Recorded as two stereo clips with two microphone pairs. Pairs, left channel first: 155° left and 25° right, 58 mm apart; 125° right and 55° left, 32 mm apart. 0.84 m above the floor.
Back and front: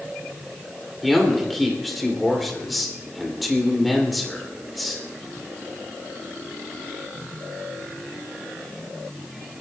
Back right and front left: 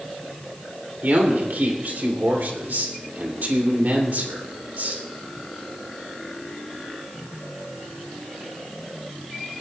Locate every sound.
1.0 s a man speaking: 65° left, 2.5 m